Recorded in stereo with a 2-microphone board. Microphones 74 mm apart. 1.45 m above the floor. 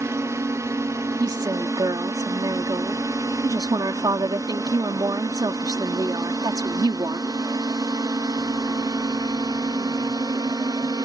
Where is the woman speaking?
65° right (ahead or behind).